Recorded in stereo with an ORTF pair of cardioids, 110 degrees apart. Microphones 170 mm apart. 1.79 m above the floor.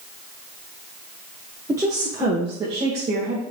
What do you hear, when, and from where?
1.7 s a woman speaking: 15° right, 2.5 m; by 3.4 s 40° right, 2.5 m